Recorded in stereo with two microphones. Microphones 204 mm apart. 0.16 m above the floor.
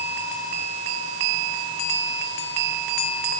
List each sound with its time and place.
Only background noise.